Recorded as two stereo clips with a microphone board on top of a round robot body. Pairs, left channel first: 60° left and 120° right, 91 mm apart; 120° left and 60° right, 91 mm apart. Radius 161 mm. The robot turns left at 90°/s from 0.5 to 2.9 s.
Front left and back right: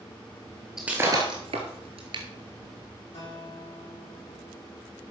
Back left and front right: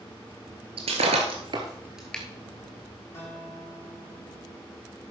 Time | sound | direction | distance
0.8 | breaking glass | 35° right | 0.9 m
3.1 | a guitar | 60° left | 6.5 m